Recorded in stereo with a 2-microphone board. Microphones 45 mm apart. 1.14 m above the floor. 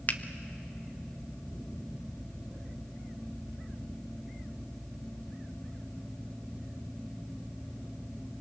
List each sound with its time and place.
0.1 s a finger snap: 40° left (ahead or behind), 0.8 m